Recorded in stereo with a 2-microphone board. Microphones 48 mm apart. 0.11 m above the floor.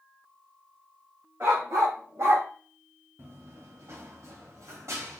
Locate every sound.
1.4 s a dog barking: 70° right (ahead or behind), 2.5 m; by 2.5 s 60° right (ahead or behind), 1.1 m
3.2 s running footsteps: 45° right (ahead or behind), 0.8 m; by 5.2 s 75° right (ahead or behind), 1.6 m